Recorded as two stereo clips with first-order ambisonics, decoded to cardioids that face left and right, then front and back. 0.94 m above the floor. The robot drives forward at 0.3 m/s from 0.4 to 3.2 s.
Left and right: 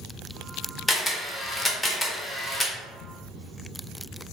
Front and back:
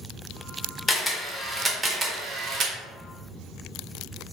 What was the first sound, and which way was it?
A camera shutter, 30° left.